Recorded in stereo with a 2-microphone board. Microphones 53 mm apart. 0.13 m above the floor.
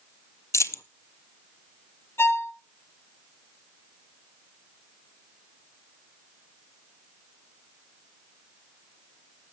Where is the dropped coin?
65° left (ahead or behind), 0.5 m.